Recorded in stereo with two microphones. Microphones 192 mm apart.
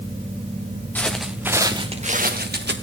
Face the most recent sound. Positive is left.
turn(degrees=-65)  # may be behind; listen again after turning